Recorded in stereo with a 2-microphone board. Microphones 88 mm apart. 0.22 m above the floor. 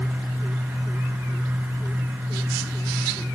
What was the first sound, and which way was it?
Only background noise.